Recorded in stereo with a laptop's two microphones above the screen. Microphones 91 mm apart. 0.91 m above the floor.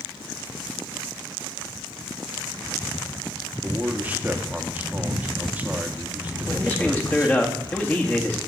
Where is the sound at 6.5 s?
20° left (ahead or behind), 1.9 m.